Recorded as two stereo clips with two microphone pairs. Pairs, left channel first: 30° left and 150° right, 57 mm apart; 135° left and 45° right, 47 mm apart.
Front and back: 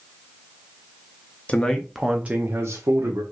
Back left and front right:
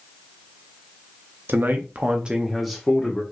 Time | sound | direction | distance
1.5 | a man speaking | 25° right | 0.7 m